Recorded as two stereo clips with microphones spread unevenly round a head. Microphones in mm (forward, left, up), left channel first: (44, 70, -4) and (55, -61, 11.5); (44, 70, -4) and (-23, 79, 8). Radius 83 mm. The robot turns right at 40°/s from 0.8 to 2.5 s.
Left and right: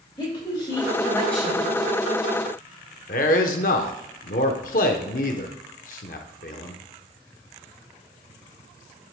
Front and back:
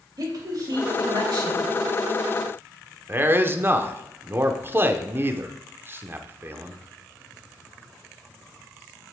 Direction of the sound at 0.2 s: 160° left.